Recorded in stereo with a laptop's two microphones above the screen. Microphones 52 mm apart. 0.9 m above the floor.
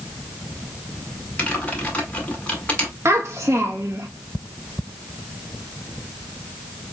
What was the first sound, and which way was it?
Typing on a keyboard, 25° left (ahead or behind).